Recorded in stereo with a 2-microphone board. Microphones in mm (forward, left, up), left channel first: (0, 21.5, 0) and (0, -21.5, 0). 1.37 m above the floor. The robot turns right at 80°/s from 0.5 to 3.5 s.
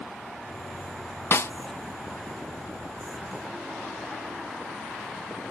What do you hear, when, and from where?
1.3 s a snare drum: 60° left (ahead or behind)